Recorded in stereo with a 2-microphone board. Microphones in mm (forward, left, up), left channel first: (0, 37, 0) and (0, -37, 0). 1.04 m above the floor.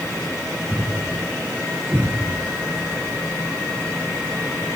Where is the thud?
15° right (ahead or behind), 4.5 m.